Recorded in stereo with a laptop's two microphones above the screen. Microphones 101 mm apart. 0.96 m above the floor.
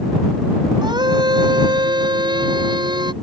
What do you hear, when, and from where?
0.8 s a scream: 45° right (ahead or behind)